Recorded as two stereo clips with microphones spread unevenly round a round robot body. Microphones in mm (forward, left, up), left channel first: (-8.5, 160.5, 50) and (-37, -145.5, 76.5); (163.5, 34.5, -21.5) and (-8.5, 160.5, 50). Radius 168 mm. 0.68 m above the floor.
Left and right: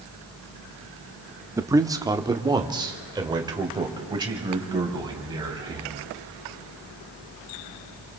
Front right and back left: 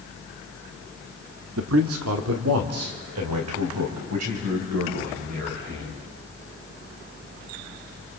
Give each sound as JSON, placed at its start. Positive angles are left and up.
{"t": 1.6, "sound": "a man speaking", "azimuth_deg": 180, "distance_m": 1.1}